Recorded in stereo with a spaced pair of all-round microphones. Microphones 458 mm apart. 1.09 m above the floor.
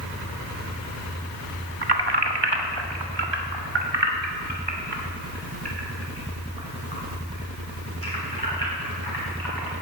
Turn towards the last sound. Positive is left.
turn(degrees=-55)  # may be behind; listen again after turning